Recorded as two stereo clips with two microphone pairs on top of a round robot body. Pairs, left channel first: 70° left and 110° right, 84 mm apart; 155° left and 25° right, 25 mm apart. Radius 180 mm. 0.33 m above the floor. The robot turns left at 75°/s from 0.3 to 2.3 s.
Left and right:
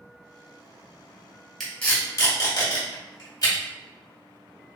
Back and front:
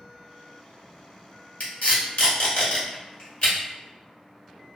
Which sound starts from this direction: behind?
Tape being pulled, at 1.6 s.